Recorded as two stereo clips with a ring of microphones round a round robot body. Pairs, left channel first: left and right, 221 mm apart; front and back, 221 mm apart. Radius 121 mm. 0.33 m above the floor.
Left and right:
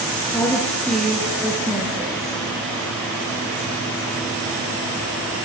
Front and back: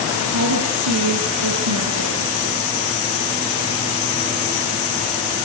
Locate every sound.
0.3 s a woman speaking: 170° left, 7 m; by 2.4 s 165° right, 7 m